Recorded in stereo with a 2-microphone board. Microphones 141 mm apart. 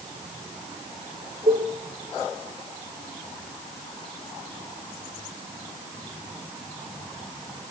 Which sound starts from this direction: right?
A cowbell, at 1.5 s.